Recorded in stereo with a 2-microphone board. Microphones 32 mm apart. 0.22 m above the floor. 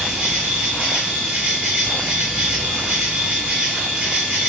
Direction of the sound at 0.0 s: 30° right (ahead or behind).